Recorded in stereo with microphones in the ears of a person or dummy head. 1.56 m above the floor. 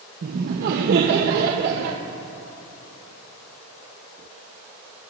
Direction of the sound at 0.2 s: 55° right (ahead or behind).